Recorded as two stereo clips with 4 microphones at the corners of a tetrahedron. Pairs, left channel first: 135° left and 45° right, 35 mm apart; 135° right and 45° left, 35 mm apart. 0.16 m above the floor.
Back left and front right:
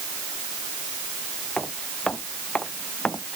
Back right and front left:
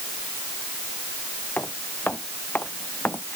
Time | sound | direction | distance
1.6 | footsteps | 165° right | ?